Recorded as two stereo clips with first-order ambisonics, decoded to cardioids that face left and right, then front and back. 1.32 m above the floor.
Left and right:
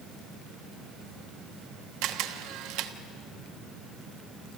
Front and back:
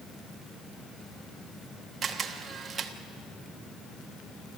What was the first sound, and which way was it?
A camera shutter, 110° right.